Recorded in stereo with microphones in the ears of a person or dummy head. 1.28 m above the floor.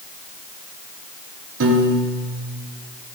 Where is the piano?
70° right (ahead or behind), 0.9 m.